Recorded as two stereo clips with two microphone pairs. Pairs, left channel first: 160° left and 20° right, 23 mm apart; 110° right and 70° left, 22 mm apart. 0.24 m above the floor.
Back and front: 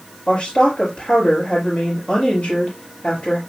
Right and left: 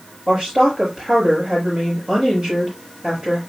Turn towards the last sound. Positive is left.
turn(degrees=125)